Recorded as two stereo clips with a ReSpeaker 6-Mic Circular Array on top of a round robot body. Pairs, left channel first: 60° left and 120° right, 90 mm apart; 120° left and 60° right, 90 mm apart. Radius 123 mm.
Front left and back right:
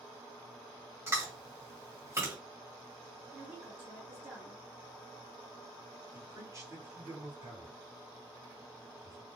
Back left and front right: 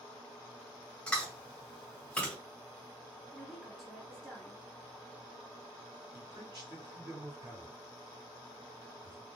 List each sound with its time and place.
1.1 s chewing: 165° right, 1.7 m
3.3 s a woman speaking: 155° right, 1.3 m
6.1 s a man speaking: 75° right, 2.0 m